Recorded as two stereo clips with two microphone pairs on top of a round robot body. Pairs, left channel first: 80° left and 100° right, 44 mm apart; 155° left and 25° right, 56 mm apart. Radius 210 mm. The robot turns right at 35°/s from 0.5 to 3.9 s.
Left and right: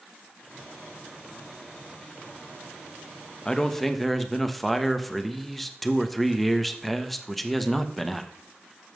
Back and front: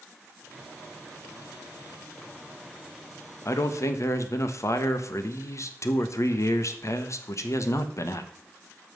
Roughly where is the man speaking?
Behind left.